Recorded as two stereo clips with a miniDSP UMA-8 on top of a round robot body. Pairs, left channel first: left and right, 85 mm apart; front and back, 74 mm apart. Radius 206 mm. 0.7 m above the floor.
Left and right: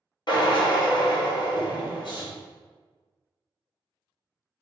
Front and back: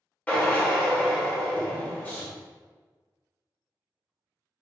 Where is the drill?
65° left, 1.5 m.